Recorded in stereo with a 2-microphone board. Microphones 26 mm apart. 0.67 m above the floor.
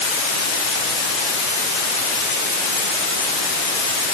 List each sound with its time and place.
Only background noise.